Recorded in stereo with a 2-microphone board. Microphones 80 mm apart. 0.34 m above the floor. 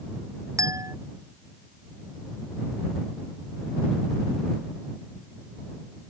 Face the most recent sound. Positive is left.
turn(degrees=-45)  # may be behind; listen again after turning